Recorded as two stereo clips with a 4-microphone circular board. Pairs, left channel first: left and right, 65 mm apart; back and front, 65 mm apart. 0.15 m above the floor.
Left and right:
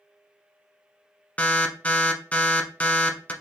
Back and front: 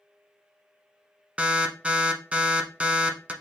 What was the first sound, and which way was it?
An alarm, 50° left.